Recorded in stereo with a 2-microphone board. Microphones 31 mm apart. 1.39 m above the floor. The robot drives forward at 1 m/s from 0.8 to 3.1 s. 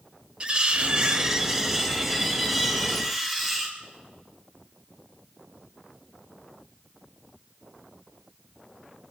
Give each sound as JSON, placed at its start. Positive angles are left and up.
{"t": 0.4, "sound": "cutlery clinking", "side_deg": -30, "distance_m": 0.5}